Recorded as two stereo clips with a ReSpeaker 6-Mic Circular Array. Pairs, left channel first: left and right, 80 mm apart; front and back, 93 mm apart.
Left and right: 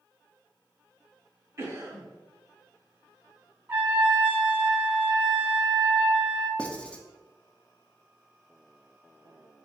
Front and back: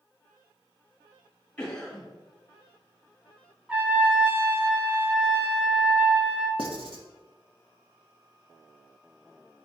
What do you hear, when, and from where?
1.6 s a cough: 70° right, 1.4 m
3.7 s a trumpet: 125° right, 0.6 m
6.6 s writing: 165° left, 0.5 m